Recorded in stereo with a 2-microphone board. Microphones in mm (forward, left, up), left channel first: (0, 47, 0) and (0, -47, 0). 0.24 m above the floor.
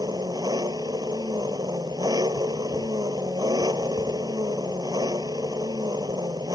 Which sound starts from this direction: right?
An engine running, at 0.0 s.